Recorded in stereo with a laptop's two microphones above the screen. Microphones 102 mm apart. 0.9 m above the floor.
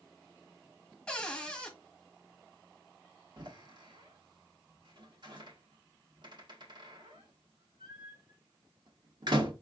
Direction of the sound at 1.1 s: 10° left (ahead or behind).